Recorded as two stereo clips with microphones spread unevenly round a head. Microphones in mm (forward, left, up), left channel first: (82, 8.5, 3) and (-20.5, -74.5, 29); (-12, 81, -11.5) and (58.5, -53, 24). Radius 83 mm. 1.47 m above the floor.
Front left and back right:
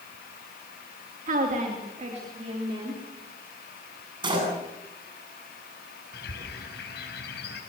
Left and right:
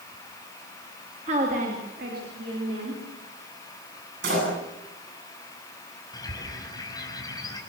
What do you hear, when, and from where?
1.3 s a woman speaking: 120° right, 3 m; by 3.0 s 90° right, 4.5 m
4.2 s a door slam: 90° right, 9 m
6.1 s a bird: 50° left, 5.5 m